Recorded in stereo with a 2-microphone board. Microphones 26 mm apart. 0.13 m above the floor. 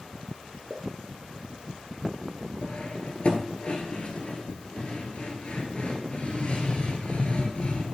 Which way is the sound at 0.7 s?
15° right (ahead or behind).